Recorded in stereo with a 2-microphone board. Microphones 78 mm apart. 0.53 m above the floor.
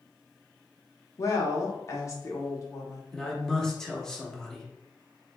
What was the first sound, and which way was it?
A woman speaking, 40° left (ahead or behind).